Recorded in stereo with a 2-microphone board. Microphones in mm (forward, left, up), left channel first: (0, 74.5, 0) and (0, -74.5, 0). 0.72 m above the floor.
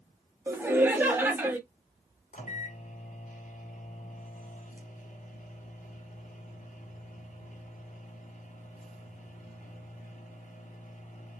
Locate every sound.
0.5 s laughter: 15° right (ahead or behind), 1.2 m
2.3 s a microwave: 60° left (ahead or behind), 0.9 m